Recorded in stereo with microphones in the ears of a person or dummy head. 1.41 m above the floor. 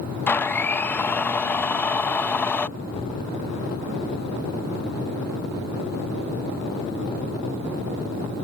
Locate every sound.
0.3 s a blender: 10° left (ahead or behind)
2.8 s an explosion: 35° left (ahead or behind)